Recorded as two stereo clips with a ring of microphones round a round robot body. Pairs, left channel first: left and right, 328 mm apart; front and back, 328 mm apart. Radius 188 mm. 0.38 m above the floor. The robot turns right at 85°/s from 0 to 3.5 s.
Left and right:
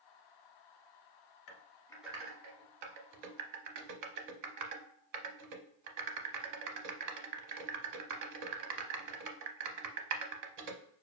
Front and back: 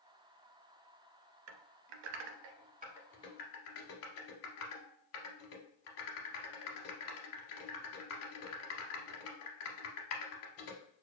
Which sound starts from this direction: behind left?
Typing on a keyboard, at 1.5 s.